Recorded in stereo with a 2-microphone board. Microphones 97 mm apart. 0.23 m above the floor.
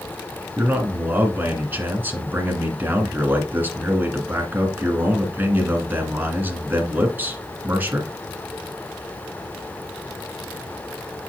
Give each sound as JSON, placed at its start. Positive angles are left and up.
{"t": 0.6, "sound": "a man speaking", "side_deg": -20, "distance_m": 2.0}